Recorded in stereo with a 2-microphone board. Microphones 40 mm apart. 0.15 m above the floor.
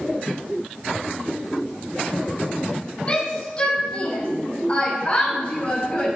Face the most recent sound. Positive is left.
turn(degrees=30)  # may be behind; listen again after turning